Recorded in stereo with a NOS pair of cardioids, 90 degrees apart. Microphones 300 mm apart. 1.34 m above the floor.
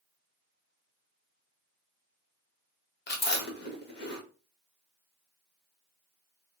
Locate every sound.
3.1 s chewing: 35° left, 1.6 m